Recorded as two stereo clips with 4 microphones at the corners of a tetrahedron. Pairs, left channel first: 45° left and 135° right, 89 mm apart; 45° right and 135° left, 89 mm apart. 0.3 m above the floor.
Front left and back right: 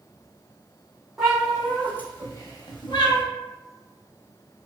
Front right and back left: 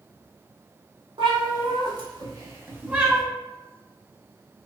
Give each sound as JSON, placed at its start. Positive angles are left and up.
{"t": 1.2, "sound": "a cat meowing", "azimuth_deg": 140, "distance_m": 0.9}